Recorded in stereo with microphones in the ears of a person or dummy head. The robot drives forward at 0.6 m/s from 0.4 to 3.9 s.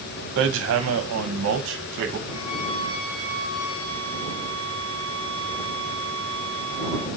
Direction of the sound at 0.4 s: 65° right (ahead or behind).